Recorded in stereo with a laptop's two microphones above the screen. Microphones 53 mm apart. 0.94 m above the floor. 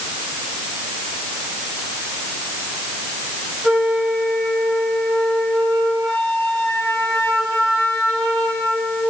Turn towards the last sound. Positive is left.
turn(degrees=10)  # may be behind; listen again after turning